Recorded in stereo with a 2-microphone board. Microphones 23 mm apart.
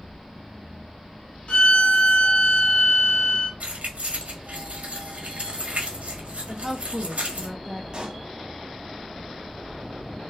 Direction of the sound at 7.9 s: 40° right (ahead or behind).